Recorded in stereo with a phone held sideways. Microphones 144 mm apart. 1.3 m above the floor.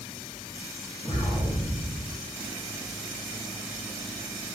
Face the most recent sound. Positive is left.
turn(degrees=40)  # may be behind; listen again after turning